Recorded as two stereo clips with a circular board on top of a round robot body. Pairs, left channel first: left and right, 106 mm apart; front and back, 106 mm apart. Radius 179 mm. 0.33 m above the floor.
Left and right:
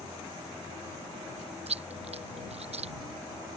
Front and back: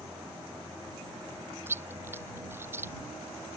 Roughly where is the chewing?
Right.